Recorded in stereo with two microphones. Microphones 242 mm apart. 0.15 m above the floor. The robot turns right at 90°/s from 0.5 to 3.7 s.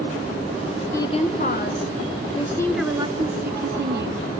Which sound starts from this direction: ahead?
A woman speaking, at 0.9 s.